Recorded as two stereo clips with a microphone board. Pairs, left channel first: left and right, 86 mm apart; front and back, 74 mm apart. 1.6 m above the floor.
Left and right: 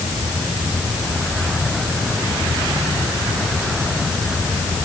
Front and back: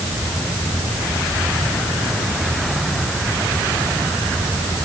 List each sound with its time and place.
Only background noise.